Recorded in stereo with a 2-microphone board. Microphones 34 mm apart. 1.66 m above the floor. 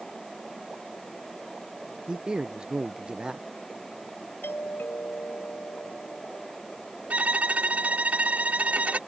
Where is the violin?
45° right (ahead or behind).